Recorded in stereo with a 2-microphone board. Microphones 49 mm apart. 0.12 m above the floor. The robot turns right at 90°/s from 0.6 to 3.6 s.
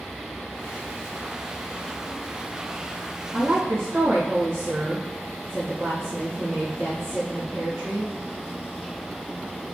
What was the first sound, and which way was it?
A woman speaking, 55° right (ahead or behind).